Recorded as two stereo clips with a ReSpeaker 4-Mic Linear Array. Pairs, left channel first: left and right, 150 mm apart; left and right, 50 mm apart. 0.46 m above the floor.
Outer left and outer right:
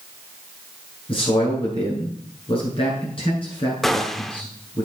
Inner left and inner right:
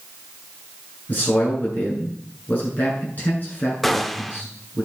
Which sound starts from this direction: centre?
A gunshot, at 3.8 s.